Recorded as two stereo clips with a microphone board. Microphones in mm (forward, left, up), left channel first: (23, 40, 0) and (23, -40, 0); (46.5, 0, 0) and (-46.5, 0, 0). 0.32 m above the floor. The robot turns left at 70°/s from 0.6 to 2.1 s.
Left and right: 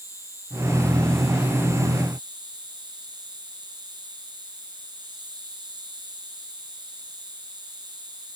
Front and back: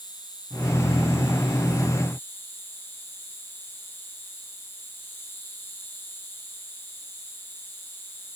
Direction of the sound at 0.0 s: 40° left.